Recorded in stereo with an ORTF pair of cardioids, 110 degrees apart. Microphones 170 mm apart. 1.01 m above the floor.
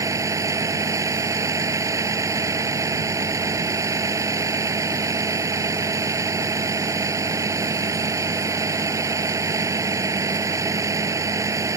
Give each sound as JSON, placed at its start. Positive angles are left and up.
{"t": 0.0, "sound": "a vehicle", "azimuth_deg": -20}